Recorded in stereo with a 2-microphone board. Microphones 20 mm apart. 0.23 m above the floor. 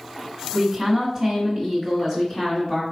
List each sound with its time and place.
0.5 s a woman speaking: 10° right (ahead or behind), 1.4 m; by 2.8 s 35° left (ahead or behind), 1.9 m